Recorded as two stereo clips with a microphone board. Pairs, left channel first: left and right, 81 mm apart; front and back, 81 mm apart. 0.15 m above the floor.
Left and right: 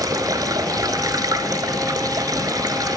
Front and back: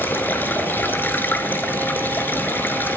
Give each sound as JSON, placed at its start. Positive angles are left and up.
{"t": 0.0, "sound": "running water", "azimuth_deg": -60, "distance_m": 0.8}